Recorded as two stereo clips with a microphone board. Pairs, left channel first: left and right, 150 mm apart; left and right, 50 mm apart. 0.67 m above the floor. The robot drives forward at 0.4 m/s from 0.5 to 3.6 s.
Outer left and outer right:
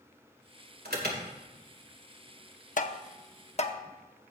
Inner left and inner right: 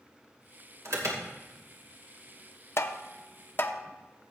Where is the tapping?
55° left (ahead or behind), 0.7 m; by 3.8 s 45° left (ahead or behind), 0.8 m.